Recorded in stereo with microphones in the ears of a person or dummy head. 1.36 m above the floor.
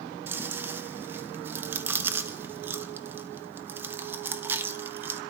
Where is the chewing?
15° right (ahead or behind), 0.9 m.